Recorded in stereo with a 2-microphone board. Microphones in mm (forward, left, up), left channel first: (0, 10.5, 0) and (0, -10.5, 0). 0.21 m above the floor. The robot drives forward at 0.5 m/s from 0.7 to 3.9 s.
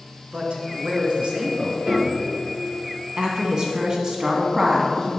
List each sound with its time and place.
0.3 s a man speaking: 65° right (ahead or behind), 2.5 m; by 1.8 s 60° right (ahead or behind), 3 m
1.9 s a piano: 60° right (ahead or behind), 3.5 m
3.2 s a woman speaking: 40° right (ahead or behind), 1.7 m; by 5.1 s 35° right (ahead or behind), 1.8 m